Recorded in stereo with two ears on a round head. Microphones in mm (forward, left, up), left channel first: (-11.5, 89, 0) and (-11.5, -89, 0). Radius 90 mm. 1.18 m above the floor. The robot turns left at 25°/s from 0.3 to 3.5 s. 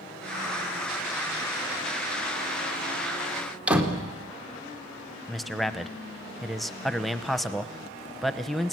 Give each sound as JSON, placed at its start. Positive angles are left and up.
{"t": 3.7, "sound": "a door slam", "side_deg": -5, "distance_m": 2.5}
{"t": 5.3, "sound": "a man speaking", "side_deg": 0, "distance_m": 0.9}